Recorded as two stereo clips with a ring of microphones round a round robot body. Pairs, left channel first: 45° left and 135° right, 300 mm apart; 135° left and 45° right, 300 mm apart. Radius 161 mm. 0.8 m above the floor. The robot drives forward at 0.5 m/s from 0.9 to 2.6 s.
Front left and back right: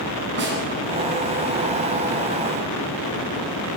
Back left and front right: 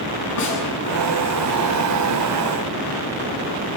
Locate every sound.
0.4 s a snare drum: 170° left, 8.5 m